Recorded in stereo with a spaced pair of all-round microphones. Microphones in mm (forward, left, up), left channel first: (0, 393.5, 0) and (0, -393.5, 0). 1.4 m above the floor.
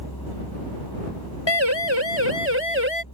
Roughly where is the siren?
Left.